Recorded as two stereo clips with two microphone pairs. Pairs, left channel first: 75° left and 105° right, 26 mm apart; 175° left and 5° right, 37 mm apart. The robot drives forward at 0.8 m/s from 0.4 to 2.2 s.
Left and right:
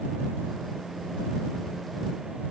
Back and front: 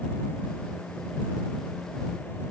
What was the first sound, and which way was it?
Only background noise.